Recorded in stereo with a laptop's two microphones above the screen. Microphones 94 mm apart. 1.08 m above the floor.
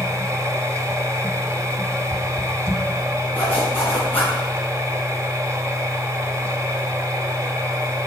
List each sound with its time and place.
0.0 s a machine running: 30° right (ahead or behind), 1.1 m
3.3 s a zipper: 15° left (ahead or behind), 4.5 m